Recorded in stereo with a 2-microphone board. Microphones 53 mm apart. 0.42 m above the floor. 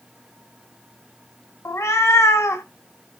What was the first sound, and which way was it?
A cat meowing, 60° left (ahead or behind).